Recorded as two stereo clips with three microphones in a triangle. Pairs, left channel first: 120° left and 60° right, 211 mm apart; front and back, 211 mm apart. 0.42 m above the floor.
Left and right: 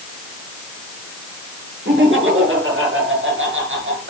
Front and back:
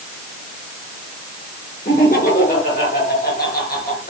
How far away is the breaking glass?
No breaking glass in this recording.